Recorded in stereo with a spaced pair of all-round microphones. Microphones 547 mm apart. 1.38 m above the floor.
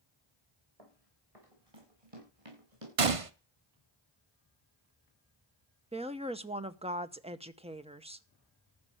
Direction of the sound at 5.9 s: 10° right (ahead or behind).